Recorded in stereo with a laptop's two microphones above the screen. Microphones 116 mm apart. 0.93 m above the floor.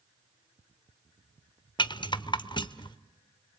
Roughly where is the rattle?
Left.